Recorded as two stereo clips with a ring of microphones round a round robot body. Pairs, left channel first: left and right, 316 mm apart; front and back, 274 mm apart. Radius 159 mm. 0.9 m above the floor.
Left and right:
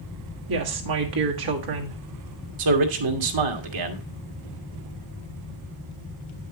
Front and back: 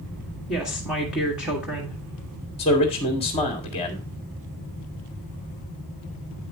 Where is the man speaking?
70° right, 1.6 m.